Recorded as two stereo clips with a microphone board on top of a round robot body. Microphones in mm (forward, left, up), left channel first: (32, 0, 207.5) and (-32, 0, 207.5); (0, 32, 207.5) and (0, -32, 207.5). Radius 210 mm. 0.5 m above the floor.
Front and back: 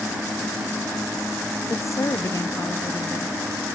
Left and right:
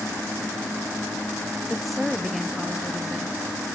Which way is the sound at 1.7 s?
Straight ahead.